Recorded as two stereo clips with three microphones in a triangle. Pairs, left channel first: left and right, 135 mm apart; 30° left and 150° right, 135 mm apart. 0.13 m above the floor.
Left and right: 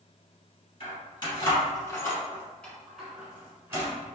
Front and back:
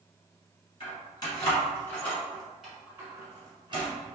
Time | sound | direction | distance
0.8 | keys jangling | 65° left | 1.5 m